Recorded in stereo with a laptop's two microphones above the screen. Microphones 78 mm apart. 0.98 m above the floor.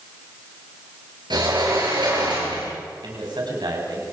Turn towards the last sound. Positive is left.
turn(degrees=-70)  # may be behind; listen again after turning